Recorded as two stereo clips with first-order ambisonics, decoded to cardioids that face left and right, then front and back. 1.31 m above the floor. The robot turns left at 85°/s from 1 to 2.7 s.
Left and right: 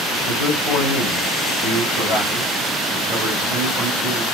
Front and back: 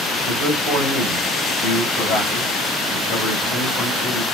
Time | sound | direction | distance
0.3 | a man speaking | 80° left | 3.5 m